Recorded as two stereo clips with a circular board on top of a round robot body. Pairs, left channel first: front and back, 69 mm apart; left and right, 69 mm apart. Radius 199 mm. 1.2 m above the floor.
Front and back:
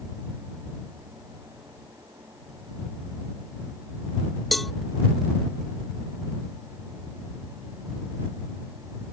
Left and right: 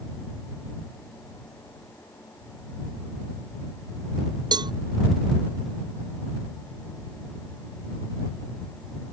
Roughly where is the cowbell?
Right.